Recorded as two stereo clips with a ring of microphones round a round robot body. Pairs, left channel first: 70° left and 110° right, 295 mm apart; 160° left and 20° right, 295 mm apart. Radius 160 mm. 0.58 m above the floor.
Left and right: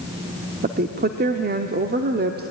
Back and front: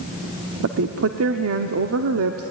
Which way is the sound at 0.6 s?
55° right.